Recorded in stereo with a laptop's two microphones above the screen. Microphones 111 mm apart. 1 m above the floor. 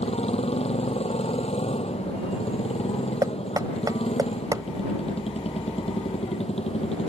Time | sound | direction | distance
0.0 | a motorcycle | 65° left (ahead or behind) | ?
3.2 | knocking | 35° right (ahead or behind) | ?